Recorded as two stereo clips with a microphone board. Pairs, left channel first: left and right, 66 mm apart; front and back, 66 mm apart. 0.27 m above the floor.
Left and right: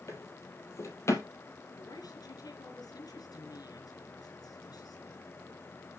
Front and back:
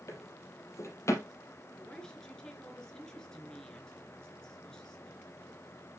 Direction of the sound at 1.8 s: 80° left.